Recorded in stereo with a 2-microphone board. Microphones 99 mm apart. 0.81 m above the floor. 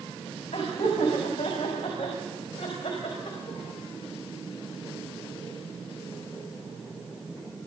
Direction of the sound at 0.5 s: 75° left (ahead or behind).